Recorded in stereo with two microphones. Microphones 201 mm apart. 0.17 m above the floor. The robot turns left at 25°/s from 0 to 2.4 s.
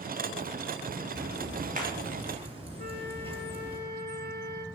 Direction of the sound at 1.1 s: 55° right (ahead or behind).